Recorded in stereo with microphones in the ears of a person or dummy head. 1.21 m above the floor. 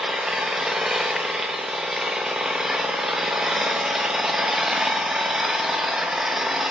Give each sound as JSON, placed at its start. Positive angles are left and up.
{"t": 0.0, "sound": "an engine running", "side_deg": -5, "distance_m": 0.9}